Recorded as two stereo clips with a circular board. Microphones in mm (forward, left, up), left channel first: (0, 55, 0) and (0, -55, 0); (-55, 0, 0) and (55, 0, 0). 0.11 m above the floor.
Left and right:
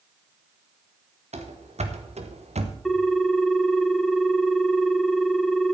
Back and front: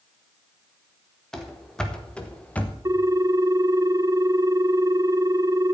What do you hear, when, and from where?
1.3 s running footsteps: 95° right, 2.5 m; by 2.8 s 105° right, 1.9 m
2.9 s a ringtone: 5° left, 0.6 m